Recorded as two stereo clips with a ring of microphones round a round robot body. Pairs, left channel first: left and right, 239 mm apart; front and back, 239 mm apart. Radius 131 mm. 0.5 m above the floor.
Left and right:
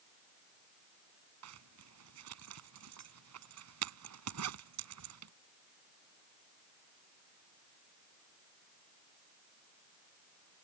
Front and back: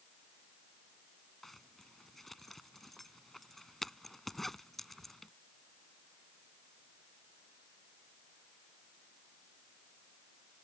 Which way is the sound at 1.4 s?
90° right.